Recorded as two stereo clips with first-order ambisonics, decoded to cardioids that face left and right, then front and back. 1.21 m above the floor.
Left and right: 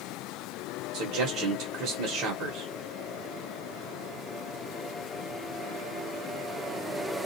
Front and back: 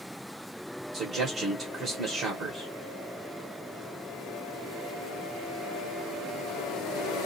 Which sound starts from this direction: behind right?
A man speaking, at 0.9 s.